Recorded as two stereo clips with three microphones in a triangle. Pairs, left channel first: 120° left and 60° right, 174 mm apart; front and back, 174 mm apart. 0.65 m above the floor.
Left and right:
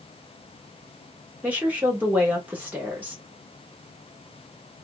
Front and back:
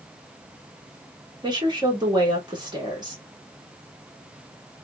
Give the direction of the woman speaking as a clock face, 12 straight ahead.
5 o'clock.